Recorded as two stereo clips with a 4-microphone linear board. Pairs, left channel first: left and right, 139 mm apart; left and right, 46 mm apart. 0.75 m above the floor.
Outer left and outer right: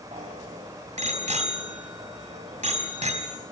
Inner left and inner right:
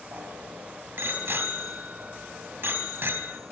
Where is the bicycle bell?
50° right (ahead or behind), 4 m.